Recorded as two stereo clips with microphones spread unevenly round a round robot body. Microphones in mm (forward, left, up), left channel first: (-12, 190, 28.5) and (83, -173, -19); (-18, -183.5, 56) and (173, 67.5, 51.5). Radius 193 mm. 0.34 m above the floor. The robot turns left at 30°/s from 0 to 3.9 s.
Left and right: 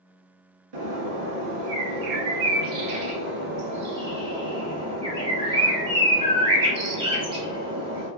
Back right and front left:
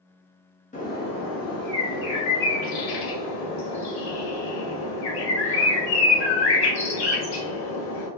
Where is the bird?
60° right, 1.0 m; by 8.1 s 155° right, 1.0 m.